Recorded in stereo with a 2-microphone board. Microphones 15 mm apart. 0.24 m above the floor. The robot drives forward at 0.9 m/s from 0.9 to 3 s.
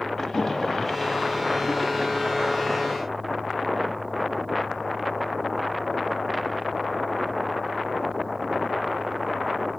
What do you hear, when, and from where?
0.2 s a splash: 25° left (ahead or behind), 0.9 m; by 2.7 s 15° left (ahead or behind), 1.6 m